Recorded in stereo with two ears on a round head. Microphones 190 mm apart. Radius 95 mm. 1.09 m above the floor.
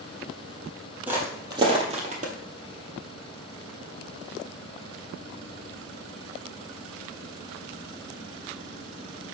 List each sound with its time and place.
1.1 s footsteps: 10° right (ahead or behind), 1.5 m; by 2.3 s 40° right (ahead or behind), 1.6 m